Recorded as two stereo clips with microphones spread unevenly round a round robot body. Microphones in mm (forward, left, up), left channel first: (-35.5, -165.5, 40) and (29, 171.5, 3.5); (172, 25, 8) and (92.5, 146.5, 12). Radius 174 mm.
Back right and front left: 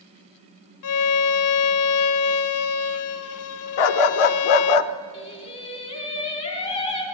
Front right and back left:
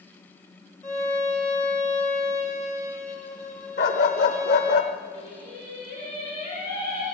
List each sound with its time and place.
0.8 s a violin: 140° right, 0.8 m
3.8 s a dog barking: 100° right, 0.8 m
5.1 s singing: 175° right, 3 m